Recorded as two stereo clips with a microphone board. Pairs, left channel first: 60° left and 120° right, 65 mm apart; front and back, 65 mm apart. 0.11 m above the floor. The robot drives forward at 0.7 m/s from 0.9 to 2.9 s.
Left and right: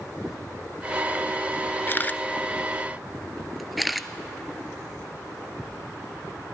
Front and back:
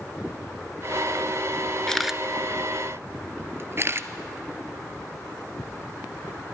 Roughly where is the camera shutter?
Left.